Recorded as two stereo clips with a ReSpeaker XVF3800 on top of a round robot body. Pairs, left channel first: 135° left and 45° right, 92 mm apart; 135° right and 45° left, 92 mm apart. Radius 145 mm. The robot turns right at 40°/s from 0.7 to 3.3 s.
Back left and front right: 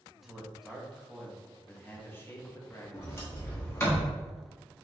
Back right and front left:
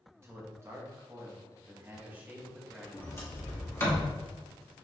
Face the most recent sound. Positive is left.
turn(degrees=-175)